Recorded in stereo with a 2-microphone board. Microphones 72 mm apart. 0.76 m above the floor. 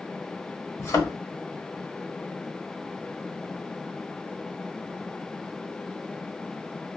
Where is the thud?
50° left (ahead or behind), 1.1 m.